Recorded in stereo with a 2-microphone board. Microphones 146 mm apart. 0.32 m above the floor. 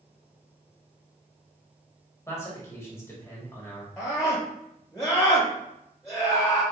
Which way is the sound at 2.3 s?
20° left (ahead or behind).